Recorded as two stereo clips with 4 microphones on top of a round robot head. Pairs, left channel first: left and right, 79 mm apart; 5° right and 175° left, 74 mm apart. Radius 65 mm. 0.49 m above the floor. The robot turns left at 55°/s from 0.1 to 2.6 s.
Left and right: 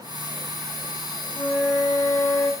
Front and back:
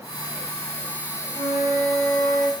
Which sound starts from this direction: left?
A flute, at 1.4 s.